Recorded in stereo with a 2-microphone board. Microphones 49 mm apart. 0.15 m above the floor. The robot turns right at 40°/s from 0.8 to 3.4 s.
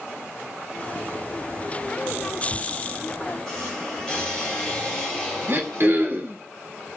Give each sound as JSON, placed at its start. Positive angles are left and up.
{"t": 2.5, "sound": "a squeak", "side_deg": 40, "distance_m": 3.0}
{"t": 5.5, "sound": "throat clearing", "side_deg": -45, "distance_m": 1.0}